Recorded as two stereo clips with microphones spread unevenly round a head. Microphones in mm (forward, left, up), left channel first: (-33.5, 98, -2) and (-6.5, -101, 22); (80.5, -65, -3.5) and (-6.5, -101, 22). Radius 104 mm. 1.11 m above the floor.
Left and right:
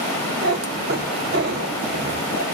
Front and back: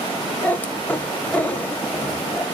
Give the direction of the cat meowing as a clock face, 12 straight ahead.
2 o'clock.